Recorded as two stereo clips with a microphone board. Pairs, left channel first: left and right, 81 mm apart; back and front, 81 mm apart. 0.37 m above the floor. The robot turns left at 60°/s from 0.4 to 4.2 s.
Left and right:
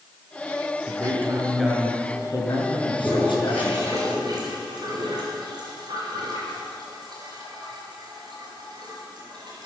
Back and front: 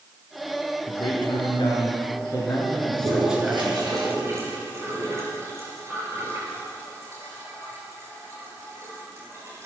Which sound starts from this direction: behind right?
A man speaking, at 0.9 s.